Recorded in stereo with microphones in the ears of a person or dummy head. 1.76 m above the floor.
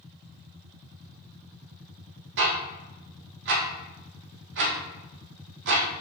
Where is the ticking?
65° right (ahead or behind), 1.8 m.